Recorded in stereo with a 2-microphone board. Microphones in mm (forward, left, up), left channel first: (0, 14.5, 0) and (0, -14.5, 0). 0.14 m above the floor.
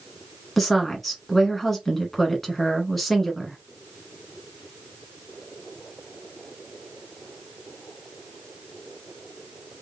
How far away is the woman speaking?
About 1.2 m.